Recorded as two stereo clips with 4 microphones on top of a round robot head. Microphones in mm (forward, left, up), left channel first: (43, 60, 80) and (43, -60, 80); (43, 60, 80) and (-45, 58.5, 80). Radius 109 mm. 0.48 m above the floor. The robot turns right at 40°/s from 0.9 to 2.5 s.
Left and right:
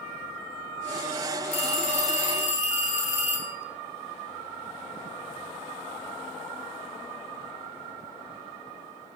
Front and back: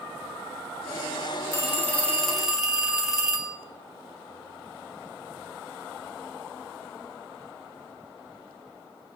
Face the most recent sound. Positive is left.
turn(degrees=95)